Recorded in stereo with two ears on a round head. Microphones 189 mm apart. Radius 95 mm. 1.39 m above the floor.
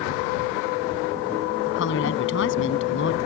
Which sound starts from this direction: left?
A woman speaking, at 1.7 s.